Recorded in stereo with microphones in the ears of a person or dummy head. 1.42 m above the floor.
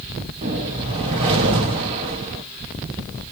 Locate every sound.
0.4 s a whoosh: 25° right (ahead or behind), 0.8 m